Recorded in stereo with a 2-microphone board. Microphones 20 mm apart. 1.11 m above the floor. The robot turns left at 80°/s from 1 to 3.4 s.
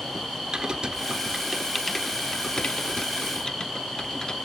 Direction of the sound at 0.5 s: 40° right (ahead or behind).